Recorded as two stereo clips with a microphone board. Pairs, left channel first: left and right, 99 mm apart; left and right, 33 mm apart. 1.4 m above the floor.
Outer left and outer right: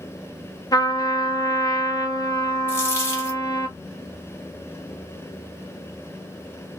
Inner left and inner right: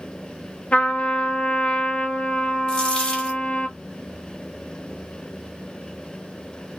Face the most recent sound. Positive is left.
turn(degrees=25)  # may be behind; listen again after turning